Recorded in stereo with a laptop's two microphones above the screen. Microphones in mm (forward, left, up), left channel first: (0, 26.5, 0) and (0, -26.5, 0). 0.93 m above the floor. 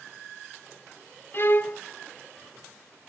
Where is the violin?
45° left (ahead or behind), 0.6 m.